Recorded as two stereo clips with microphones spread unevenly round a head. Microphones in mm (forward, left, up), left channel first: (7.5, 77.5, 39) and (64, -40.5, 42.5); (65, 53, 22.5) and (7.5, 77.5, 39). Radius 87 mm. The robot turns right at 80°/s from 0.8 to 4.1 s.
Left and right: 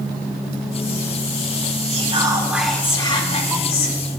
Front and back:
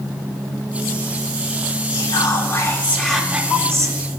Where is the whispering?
35° right, 4.5 m; by 4.0 s 130° left, 4.5 m.